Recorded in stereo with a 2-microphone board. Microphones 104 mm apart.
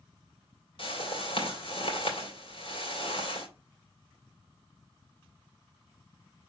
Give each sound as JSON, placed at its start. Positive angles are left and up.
{"t": 0.8, "sound": "a whoosh", "side_deg": 60, "distance_m": 2.5}